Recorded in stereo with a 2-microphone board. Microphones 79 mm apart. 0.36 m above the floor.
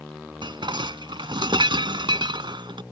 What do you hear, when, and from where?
0.4 s dishes clattering: 75° right (ahead or behind)